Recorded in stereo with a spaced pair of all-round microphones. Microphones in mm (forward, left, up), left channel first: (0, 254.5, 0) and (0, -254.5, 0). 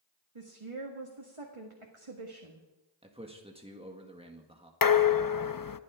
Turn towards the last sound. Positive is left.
turn(degrees=40)  # may be behind; listen again after turning